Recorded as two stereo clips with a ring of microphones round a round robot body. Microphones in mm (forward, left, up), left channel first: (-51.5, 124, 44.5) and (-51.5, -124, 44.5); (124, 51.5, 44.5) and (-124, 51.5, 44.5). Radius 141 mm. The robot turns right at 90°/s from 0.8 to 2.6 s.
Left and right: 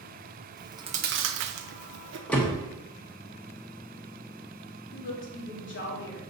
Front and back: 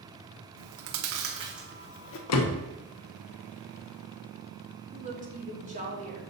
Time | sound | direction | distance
0.6 | chewing | 165° right | 0.6 m
2.3 | a door slam | straight ahead | 0.9 m
4.9 | a woman speaking | 125° left | 2 m